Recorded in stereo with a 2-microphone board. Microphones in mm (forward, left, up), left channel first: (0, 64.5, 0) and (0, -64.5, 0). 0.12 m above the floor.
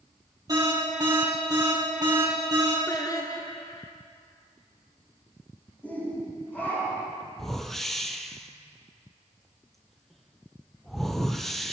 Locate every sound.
0.5 s an alarm: 30° right (ahead or behind), 3 m
2.9 s singing: 30° left (ahead or behind), 1.0 m
5.8 s a shout: 15° left (ahead or behind), 5 m
7.4 s a whoosh: centre (ahead or behind), 0.7 m